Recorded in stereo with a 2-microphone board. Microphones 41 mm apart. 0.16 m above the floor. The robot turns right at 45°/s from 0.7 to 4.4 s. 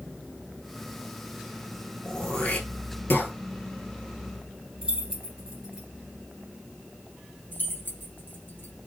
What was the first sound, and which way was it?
Throat clearing, 20° left (ahead or behind).